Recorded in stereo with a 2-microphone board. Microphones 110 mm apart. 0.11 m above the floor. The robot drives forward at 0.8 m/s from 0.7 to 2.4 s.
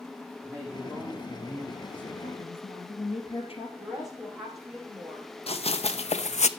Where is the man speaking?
15° left (ahead or behind), 5 m.